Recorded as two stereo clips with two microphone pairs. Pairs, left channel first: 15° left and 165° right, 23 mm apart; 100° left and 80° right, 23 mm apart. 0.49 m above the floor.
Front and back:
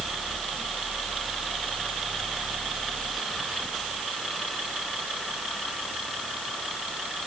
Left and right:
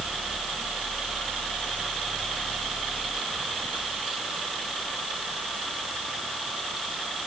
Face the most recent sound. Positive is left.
No sound to turn to.